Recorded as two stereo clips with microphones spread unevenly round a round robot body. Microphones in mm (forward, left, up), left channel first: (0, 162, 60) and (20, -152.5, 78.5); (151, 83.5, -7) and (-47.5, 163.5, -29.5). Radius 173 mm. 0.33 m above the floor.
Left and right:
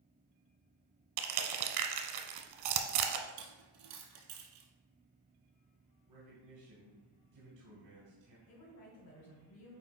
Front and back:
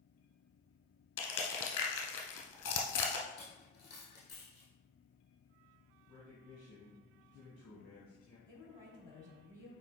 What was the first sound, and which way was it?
Crushing, 75° right.